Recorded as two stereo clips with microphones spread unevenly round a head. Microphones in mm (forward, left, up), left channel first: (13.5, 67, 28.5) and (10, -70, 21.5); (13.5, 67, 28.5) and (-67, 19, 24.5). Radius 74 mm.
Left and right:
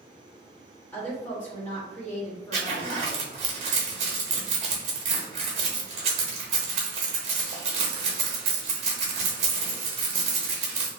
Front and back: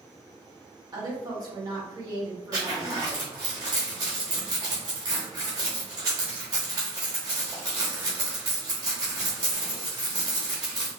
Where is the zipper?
105° right, 0.7 m.